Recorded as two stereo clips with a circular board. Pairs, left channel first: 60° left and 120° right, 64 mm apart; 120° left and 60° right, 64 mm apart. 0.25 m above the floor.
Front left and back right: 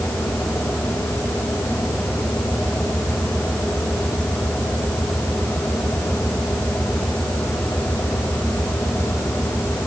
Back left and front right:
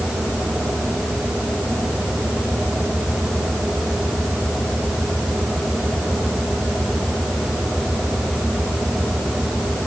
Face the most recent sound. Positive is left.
No sound to turn to.